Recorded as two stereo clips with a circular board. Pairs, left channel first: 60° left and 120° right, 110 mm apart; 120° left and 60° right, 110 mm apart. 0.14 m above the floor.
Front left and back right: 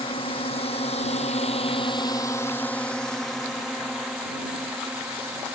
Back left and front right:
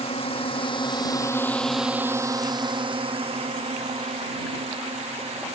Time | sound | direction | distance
0.0 | a drone | 95° left | ?